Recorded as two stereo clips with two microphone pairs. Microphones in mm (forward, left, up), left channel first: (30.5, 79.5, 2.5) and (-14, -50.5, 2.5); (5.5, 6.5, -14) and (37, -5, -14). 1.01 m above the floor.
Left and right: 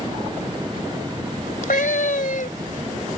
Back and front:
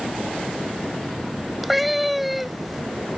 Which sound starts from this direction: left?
A cat meowing, at 1.6 s.